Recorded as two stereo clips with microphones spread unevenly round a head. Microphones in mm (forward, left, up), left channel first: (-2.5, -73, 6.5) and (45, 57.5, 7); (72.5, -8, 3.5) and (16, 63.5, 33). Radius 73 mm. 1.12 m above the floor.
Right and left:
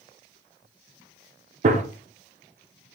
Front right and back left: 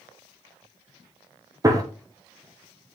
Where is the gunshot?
70° left, 0.9 m.